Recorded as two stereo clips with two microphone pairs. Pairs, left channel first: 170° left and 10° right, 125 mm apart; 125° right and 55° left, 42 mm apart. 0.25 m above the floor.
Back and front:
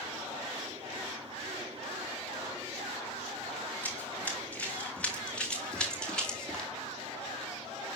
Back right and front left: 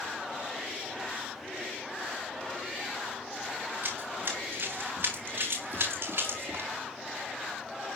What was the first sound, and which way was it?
Running footsteps, 95° left.